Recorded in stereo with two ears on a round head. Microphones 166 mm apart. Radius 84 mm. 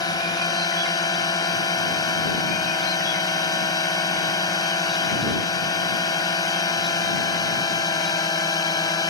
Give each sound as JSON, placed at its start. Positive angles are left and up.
{"t": 0.0, "sound": "a drone", "side_deg": 20}